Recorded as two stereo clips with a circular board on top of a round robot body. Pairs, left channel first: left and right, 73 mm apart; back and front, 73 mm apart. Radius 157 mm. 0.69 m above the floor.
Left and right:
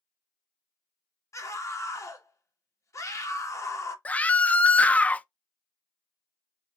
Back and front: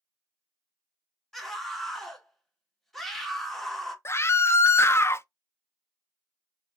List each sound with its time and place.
1.3 s a scream: 95° left, 1.4 m
4.0 s a scream: 150° left, 0.5 m